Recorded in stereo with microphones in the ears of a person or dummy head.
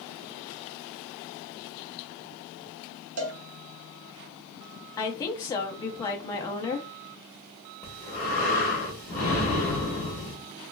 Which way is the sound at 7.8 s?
10° left (ahead or behind).